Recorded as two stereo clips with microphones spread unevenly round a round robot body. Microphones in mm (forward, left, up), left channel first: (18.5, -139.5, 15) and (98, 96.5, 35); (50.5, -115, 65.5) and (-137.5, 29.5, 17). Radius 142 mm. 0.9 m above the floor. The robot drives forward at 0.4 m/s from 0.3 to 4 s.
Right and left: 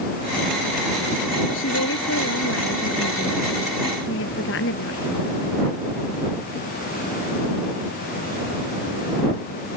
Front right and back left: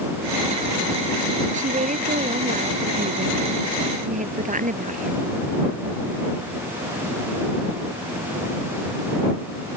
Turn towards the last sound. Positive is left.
turn(degrees=-160)